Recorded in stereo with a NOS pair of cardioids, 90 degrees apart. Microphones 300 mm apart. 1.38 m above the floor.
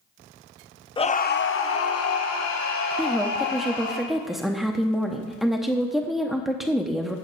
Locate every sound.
1.0 s a scream: 15° left, 0.6 m; by 4.0 s 70° left, 2.5 m
3.0 s a woman speaking: straight ahead, 0.6 m